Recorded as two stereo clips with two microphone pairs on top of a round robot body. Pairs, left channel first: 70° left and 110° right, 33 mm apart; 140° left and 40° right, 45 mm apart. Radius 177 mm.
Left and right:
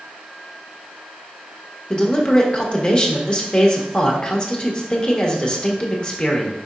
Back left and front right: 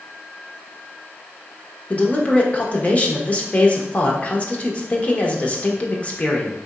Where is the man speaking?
120° left, 1.3 m.